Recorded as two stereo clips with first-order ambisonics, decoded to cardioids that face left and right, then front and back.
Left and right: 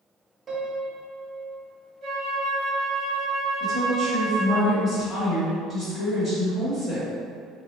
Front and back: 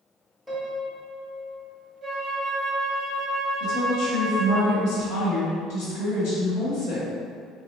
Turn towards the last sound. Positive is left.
turn(degrees=5)